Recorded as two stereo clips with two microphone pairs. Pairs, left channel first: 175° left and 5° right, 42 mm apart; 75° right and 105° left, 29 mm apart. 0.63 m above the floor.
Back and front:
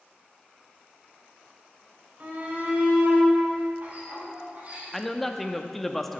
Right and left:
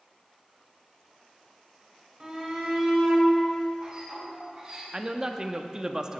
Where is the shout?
40° left, 3.5 m; by 4.8 s 45° left, 5 m.